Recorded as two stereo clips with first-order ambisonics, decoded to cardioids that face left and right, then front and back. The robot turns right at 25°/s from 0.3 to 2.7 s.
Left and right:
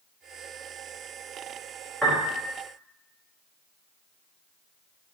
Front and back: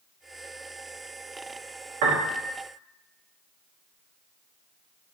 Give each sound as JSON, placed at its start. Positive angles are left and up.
{"t": 2.0, "sound": "a piano", "azimuth_deg": -175, "distance_m": 0.8}